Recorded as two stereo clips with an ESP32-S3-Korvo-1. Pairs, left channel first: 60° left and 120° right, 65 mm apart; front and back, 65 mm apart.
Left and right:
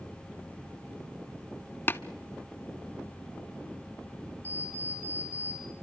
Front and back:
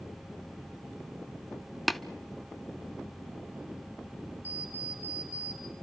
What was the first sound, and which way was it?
Tapping, 90° left.